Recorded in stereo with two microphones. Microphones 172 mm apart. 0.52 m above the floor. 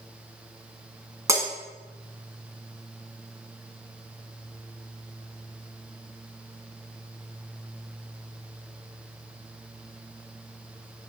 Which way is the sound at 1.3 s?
20° right (ahead or behind).